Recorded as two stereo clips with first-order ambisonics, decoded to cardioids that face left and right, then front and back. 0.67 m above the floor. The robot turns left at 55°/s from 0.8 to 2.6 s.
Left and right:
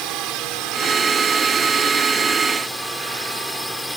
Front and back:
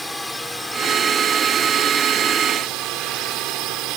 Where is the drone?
80° right; by 4.0 s straight behind.